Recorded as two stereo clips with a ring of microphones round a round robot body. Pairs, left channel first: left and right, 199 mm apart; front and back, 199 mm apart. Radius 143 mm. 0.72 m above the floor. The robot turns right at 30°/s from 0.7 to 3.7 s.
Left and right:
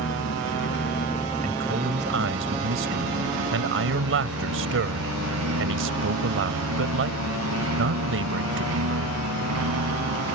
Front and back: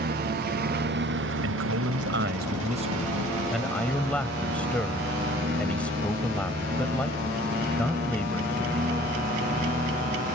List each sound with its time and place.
0.0 s a lawn mower: 140° left; by 10.4 s 115° right
1.4 s a man speaking: 155° right; by 9.2 s 85° right